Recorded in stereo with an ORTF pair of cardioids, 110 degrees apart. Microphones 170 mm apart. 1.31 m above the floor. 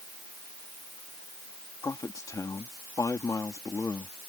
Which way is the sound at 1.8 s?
20° left.